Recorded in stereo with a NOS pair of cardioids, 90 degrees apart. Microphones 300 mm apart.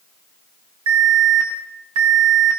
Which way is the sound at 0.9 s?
60° right.